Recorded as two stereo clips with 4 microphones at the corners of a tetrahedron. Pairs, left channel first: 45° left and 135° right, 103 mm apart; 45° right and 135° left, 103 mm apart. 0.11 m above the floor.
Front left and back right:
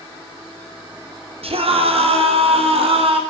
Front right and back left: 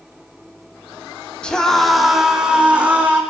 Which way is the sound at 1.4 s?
125° right.